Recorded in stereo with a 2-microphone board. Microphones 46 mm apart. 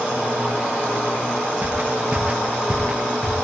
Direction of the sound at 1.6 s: 35° right (ahead or behind).